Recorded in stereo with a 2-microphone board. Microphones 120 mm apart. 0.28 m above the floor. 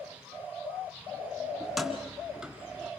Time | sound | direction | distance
1.6 | keys jangling | centre (ahead or behind) | 2.0 m